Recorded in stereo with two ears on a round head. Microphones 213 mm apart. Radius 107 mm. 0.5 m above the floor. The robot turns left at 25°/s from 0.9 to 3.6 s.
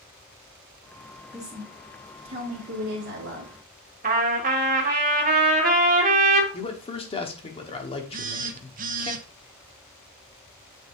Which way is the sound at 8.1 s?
35° right (ahead or behind).